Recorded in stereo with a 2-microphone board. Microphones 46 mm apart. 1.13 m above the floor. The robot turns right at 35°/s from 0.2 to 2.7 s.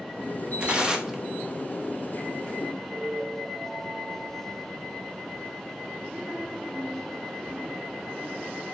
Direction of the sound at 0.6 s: 30° right (ahead or behind).